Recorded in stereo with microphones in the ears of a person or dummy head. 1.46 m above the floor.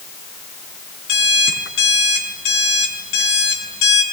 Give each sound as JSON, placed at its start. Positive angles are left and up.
{"t": 1.1, "sound": "an alarm clock", "side_deg": 75, "distance_m": 5.5}